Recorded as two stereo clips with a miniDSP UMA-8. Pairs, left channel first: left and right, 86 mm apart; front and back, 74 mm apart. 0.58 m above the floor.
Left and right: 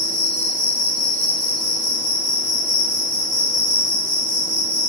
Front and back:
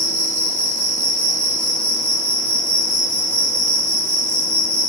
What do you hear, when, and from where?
0.0 s an insect: 150° left, 1.6 m